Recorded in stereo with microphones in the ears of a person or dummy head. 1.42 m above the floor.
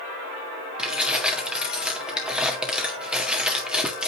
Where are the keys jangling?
5° right (ahead or behind), 1.5 m.